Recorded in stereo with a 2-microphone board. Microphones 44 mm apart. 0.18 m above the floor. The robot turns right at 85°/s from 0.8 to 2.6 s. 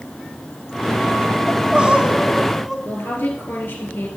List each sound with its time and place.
1.5 s crying: 25° right (ahead or behind), 0.7 m; by 2.8 s centre (ahead or behind), 0.7 m
2.9 s a woman speaking: 60° left (ahead or behind), 3.5 m